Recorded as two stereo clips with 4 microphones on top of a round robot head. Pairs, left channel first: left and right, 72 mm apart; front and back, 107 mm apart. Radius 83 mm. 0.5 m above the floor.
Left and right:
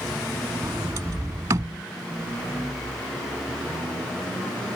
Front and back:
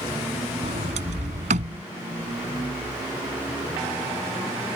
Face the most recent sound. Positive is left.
turn(degrees=-150)